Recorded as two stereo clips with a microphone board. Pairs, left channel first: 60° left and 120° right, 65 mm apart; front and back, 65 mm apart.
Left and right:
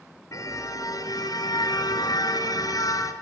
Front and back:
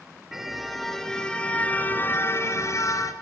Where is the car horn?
95° left, 4 m; by 3.1 s 30° left, 3.5 m.